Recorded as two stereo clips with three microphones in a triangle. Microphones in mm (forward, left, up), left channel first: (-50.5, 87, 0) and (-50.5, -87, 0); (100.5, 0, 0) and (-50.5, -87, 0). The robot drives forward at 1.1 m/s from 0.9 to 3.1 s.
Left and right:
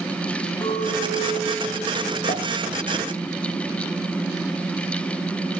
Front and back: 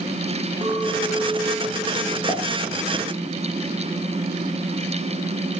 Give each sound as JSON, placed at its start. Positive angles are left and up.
{"t": 0.6, "sound": "a clink", "azimuth_deg": 150, "distance_m": 6.0}
{"t": 2.3, "sound": "a pop", "azimuth_deg": 130, "distance_m": 9.0}